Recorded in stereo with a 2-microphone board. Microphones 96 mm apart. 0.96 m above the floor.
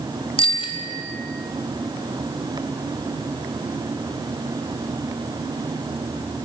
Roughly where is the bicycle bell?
Left.